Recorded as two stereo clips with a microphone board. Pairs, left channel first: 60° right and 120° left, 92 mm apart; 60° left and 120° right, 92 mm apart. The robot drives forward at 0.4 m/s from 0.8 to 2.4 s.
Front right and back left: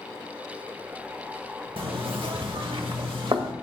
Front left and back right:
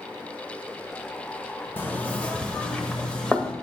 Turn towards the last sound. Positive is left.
turn(degrees=140)